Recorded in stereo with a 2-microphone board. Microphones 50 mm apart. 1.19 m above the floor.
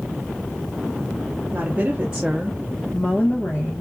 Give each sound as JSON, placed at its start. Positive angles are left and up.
{"t": 1.5, "sound": "a woman speaking", "side_deg": -35, "distance_m": 0.9}